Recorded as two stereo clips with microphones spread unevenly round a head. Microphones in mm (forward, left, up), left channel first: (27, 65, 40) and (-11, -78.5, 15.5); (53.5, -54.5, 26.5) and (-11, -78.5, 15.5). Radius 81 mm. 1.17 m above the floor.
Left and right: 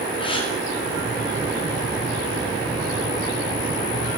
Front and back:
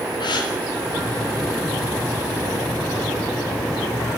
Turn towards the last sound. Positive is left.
turn(degrees=20)